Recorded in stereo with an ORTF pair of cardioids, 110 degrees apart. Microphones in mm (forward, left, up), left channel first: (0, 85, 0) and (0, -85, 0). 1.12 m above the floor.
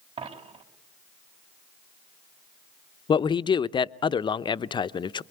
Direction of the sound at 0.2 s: 35° right.